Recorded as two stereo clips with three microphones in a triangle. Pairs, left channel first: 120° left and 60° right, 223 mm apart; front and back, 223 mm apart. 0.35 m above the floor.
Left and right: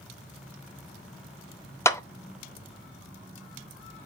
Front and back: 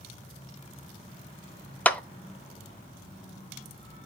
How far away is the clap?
About 0.7 m.